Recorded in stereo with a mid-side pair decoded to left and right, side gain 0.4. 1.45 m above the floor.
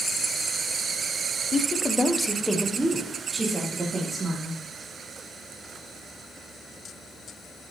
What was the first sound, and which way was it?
A woman speaking, 50° left.